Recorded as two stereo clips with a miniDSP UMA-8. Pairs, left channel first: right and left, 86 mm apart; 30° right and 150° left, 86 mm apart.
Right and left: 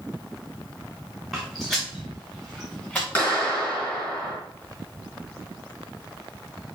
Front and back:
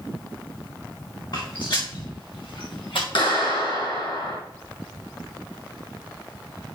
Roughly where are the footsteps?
Ahead.